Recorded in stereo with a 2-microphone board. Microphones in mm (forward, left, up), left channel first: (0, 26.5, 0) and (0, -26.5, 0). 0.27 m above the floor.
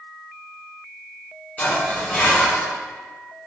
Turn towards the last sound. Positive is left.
turn(degrees=25)  # may be behind; listen again after turning